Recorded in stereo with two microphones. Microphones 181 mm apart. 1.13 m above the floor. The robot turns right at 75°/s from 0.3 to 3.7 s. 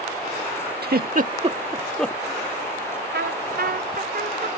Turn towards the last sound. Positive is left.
turn(degrees=-55)